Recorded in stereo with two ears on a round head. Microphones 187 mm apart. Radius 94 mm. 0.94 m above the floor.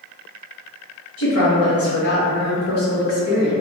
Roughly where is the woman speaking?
Left.